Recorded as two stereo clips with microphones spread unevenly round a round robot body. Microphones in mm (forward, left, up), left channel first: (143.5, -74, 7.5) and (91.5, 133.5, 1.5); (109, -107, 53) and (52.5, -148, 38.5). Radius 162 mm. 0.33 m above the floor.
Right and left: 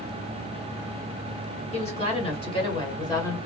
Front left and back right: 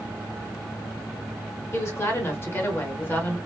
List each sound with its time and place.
1.7 s a woman speaking: 20° right, 1.7 m